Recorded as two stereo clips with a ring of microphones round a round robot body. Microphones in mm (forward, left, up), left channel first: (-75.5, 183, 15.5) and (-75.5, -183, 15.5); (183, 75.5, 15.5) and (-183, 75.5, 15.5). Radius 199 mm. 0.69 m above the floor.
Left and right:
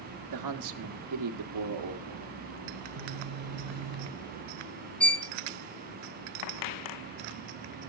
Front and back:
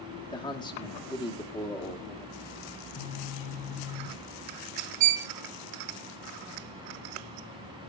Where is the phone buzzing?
40° right, 1.1 m.